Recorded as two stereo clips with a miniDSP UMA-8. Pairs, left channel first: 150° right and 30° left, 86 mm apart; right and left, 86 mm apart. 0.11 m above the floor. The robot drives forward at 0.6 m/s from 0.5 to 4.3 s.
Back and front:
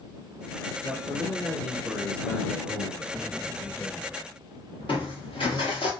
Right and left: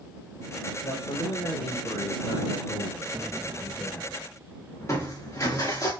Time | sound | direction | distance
0.8 | a man speaking | 55° right | 3.5 m
3.1 | an explosion | 110° left | 0.9 m
4.8 | crushing | 145° right | 4.5 m